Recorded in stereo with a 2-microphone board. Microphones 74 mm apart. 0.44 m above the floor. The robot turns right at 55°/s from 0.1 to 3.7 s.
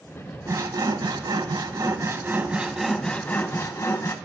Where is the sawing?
135° right, 0.5 m; by 4.2 s 45° left, 0.5 m.